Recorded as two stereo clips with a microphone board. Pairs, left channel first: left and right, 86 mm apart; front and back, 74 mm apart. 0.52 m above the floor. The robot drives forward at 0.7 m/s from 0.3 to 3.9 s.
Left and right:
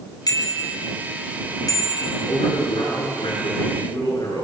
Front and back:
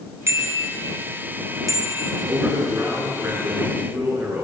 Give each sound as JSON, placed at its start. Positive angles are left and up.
{"t": 0.3, "sound": "a bicycle bell", "azimuth_deg": 130, "distance_m": 3.5}
{"t": 2.3, "sound": "a man speaking", "azimuth_deg": 120, "distance_m": 7.5}